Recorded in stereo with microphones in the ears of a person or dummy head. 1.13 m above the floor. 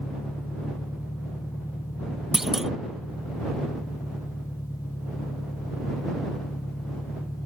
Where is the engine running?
15° left (ahead or behind).